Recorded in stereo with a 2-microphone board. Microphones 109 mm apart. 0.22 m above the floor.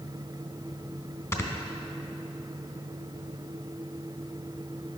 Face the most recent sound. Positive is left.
turn(degrees=30)  # may be behind; listen again after turning